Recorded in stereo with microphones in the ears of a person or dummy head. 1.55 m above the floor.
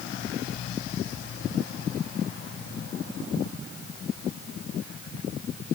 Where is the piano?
No piano in this recording.